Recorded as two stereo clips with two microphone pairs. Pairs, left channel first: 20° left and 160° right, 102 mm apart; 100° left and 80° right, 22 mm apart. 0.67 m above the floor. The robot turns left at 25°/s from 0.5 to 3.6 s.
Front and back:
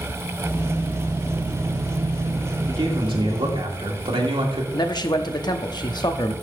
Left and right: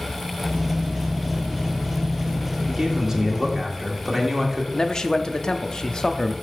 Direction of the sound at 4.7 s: 50° left.